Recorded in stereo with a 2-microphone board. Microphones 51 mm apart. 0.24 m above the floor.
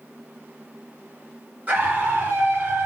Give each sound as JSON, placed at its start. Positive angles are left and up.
{"t": 1.7, "sound": "a scream", "side_deg": -30, "distance_m": 4.0}